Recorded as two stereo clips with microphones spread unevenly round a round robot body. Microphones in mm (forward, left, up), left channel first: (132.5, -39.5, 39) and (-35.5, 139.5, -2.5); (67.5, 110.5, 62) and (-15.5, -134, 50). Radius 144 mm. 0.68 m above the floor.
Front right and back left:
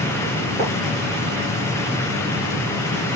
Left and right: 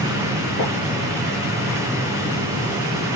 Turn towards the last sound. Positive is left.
turn(degrees=65)